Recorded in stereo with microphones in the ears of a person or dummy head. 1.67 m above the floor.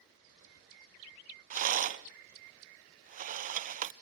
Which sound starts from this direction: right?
A rattle, at 1.5 s.